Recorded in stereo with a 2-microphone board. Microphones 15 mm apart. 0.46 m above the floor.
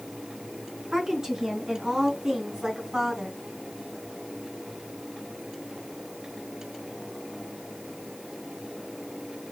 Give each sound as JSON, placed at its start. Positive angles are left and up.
{"t": 0.9, "sound": "a woman speaking", "side_deg": -30, "distance_m": 4.5}